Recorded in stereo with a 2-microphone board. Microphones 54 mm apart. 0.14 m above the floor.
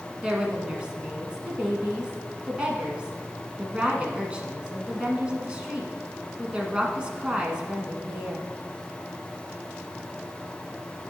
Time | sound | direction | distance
0.2 | a woman speaking | 20° right (ahead or behind) | 1.1 m